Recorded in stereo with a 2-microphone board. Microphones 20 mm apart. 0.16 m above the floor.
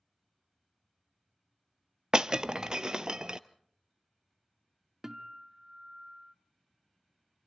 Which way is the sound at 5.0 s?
25° right (ahead or behind).